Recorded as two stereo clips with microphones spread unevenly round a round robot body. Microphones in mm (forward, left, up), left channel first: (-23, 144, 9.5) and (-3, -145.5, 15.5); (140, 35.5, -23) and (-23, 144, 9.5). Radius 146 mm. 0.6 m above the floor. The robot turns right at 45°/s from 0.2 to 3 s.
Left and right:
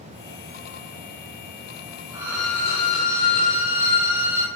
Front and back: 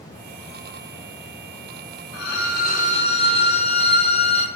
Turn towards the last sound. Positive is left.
turn(degrees=30)